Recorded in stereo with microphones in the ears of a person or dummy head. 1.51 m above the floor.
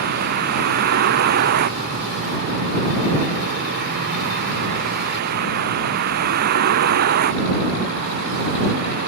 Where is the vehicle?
60° right (ahead or behind).